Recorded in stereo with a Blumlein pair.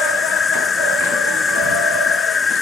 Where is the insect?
15° left.